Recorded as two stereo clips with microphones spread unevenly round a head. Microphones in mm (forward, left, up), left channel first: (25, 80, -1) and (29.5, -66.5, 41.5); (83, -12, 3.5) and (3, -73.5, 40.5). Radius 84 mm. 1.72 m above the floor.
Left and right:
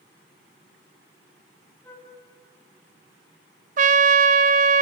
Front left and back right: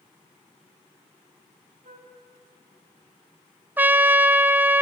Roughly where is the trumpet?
Right.